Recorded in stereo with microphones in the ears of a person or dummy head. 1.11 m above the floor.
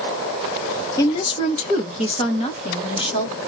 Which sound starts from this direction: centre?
A woman speaking, at 1.0 s.